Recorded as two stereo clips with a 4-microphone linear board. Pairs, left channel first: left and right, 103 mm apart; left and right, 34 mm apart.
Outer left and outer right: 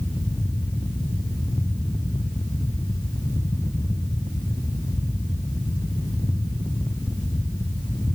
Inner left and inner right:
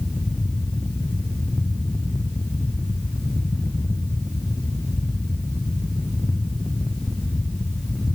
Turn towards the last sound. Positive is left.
No sound to turn to.